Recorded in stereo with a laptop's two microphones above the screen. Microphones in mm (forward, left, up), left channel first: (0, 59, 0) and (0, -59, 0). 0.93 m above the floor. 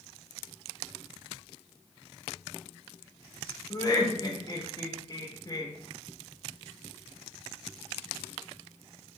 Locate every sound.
3.7 s laughter: 35° left (ahead or behind), 0.5 m